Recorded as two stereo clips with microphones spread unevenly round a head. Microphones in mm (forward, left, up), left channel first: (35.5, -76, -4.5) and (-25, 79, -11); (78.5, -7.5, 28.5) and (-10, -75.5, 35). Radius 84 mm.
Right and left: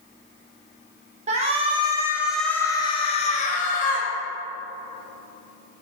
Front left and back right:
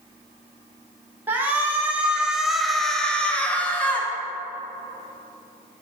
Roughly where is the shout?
Behind left.